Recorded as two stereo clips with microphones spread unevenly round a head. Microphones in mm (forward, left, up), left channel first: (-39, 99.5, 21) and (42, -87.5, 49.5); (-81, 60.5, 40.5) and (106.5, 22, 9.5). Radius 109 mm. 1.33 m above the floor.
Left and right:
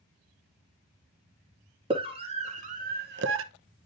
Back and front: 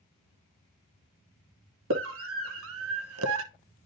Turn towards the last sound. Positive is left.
turn(degrees=-45)